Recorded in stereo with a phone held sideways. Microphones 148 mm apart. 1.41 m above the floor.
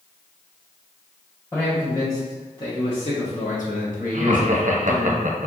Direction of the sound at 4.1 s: 60° right (ahead or behind).